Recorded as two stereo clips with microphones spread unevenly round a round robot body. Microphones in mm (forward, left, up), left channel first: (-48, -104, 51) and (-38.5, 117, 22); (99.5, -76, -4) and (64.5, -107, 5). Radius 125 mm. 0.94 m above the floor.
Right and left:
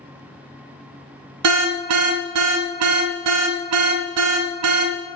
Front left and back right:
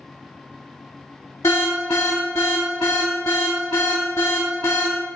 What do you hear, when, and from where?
1.4 s an alarm: 100° left, 0.6 m